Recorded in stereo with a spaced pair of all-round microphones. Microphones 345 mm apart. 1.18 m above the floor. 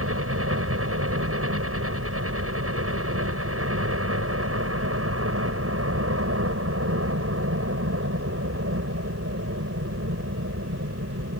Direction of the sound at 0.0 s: 40° right (ahead or behind).